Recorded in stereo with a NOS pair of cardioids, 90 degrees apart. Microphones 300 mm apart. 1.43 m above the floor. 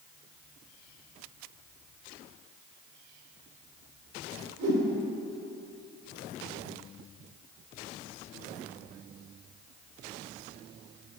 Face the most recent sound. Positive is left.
turn(degrees=-65)